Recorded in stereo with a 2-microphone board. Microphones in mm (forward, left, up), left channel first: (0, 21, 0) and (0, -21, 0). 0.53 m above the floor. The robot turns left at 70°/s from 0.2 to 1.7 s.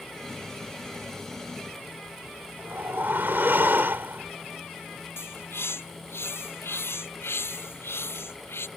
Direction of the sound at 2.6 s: 60° right (ahead or behind).